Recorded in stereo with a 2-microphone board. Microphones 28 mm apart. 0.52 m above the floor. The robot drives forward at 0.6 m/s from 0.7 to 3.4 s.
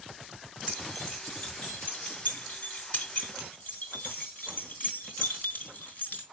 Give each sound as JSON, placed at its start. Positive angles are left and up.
{"t": 0.7, "sound": "keys jangling", "side_deg": 45, "distance_m": 5.0}